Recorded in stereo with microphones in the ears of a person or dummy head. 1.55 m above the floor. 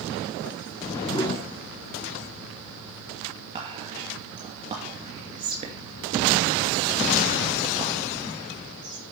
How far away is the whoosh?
About 1.0 m.